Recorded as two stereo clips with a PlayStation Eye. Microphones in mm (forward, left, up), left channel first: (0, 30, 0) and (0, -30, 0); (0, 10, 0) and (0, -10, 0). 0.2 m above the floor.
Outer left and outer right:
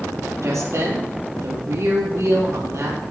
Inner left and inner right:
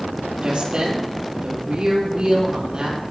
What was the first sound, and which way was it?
A woman speaking, 60° right (ahead or behind).